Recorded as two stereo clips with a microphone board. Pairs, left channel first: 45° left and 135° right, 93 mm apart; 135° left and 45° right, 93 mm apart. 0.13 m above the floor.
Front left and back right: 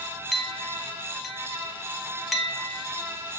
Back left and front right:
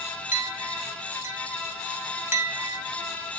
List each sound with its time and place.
0.3 s a clink: 40° right, 0.8 m